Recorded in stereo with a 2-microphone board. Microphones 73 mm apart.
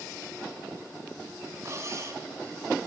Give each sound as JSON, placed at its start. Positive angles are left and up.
{"t": 1.6, "sound": "cutlery clinking", "side_deg": -40, "distance_m": 2.5}